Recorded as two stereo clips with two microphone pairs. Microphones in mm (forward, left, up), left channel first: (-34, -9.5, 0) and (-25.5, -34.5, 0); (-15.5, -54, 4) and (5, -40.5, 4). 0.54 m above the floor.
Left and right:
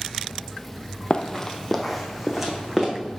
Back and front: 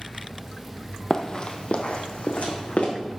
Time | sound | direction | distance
1.1 | running footsteps | 155° left | 0.7 m